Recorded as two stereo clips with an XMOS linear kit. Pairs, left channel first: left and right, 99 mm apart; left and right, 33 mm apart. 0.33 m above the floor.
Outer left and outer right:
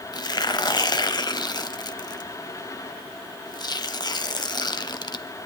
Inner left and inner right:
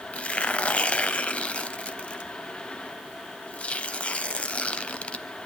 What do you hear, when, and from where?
0.1 s tearing paper: 45° left (ahead or behind), 0.8 m